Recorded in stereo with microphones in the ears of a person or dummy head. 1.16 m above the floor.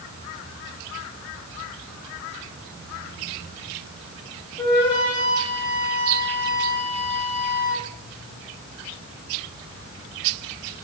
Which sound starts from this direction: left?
A flute, at 4.6 s.